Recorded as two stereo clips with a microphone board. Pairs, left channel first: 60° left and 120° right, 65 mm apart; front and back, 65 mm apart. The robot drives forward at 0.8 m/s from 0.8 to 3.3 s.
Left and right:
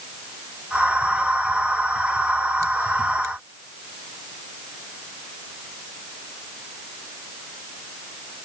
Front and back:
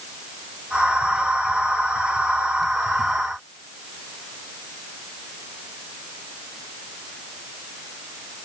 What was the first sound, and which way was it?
Only background noise.